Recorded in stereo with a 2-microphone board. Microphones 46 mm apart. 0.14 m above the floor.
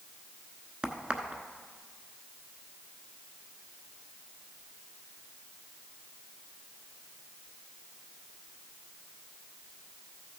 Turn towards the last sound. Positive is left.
turn(degrees=-25)  # may be behind; listen again after turning